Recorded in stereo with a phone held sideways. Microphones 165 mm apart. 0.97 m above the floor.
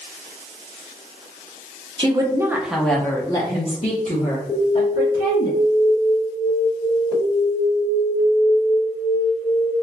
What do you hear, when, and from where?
2.0 s a woman speaking: 35° right (ahead or behind), 0.8 m; by 5.5 s 65° left (ahead or behind), 1.5 m
4.5 s an alarm: 35° left (ahead or behind), 1.4 m